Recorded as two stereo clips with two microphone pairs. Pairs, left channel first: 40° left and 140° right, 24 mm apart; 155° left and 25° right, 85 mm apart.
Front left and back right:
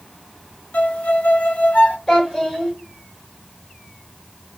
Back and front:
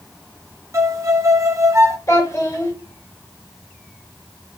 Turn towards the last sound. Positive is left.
turn(degrees=100)